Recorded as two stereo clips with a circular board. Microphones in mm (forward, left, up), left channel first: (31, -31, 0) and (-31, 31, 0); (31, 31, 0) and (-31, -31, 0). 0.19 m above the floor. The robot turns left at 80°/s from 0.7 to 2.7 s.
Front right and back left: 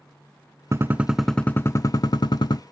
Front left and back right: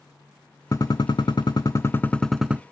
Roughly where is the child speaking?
No child speaking in this recording.